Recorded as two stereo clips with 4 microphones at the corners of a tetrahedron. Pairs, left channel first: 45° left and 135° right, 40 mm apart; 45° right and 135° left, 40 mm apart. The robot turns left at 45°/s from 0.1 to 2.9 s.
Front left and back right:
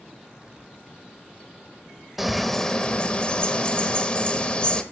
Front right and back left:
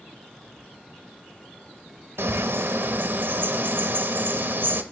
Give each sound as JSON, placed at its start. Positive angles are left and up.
{"t": 2.2, "sound": "a bird", "azimuth_deg": 140, "distance_m": 0.9}